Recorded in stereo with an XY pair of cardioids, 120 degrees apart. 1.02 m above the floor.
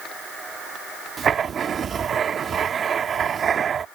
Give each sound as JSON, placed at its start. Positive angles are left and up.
{"t": 1.2, "sound": "writing", "azimuth_deg": -40}